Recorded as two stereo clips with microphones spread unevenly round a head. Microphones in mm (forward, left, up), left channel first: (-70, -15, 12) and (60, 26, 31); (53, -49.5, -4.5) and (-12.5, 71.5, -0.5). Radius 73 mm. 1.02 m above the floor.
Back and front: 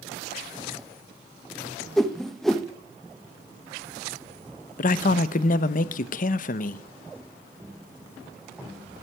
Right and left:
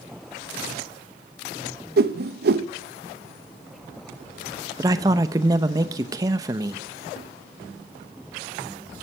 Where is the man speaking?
175° right, 0.8 m.